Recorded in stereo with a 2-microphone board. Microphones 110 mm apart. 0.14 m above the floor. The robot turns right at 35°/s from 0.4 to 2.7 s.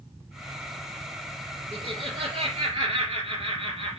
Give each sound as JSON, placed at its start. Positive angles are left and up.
{"t": 1.7, "sound": "laughter", "azimuth_deg": -120, "distance_m": 2.5}